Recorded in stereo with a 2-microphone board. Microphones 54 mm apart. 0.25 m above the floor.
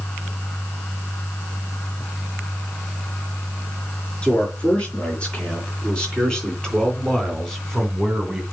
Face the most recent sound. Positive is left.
turn(degrees=0)  # may be behind; listen again after turning